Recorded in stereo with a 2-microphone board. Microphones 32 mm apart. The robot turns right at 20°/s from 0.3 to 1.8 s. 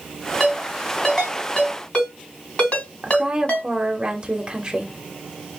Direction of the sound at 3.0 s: 25° right (ahead or behind).